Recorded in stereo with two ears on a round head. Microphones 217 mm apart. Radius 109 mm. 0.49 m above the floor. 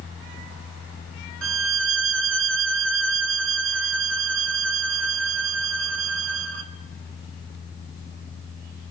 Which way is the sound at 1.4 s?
55° right (ahead or behind).